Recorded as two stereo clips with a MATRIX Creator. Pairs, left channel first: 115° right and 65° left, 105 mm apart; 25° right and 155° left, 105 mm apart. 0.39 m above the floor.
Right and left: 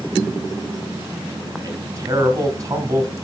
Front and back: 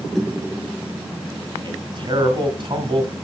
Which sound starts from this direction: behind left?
A man speaking, at 1.6 s.